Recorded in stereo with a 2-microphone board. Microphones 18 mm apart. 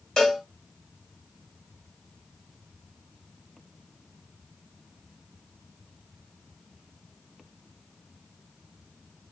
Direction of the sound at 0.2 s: 45° left (ahead or behind).